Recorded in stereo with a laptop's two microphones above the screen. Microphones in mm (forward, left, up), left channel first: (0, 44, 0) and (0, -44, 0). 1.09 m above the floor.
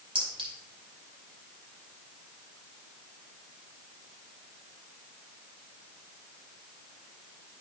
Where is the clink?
85° right, 4 m.